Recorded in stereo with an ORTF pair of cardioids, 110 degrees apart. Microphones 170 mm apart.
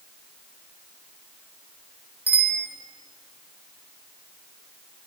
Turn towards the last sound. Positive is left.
turn(degrees=-10)